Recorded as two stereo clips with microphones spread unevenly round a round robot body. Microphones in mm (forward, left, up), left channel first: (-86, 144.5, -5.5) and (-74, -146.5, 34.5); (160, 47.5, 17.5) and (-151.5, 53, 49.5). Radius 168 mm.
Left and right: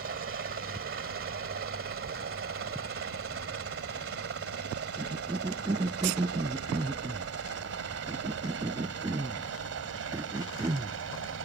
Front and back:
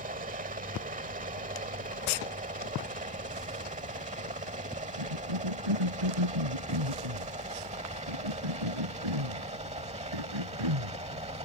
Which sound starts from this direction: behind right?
A helicopter, at 0.0 s.